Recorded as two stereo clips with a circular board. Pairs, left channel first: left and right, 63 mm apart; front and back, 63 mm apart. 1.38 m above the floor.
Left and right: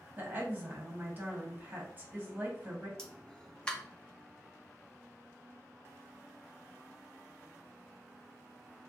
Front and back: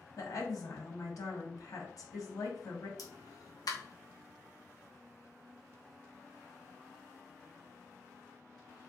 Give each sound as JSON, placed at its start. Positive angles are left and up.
{"t": 0.2, "sound": "a woman speaking", "azimuth_deg": -25, "distance_m": 1.4}
{"t": 3.0, "sound": "a pop", "azimuth_deg": 15, "distance_m": 0.8}